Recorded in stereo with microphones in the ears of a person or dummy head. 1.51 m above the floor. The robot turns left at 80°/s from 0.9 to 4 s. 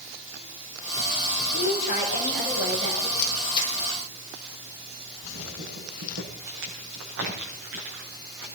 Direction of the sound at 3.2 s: 55° left (ahead or behind).